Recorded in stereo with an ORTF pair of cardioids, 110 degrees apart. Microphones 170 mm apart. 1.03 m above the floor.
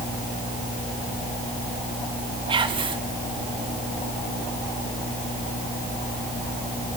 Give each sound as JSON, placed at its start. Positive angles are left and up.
{"t": 2.5, "sound": "whispering", "azimuth_deg": -30, "distance_m": 1.5}